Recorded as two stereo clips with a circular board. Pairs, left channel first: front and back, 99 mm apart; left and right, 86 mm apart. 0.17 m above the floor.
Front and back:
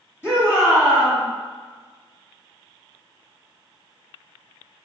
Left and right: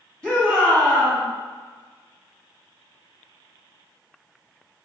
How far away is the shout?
About 1.8 m.